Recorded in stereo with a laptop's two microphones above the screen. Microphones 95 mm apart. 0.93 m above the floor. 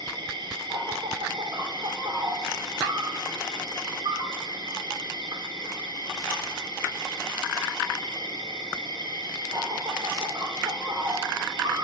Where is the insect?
55° right (ahead or behind), 0.7 m.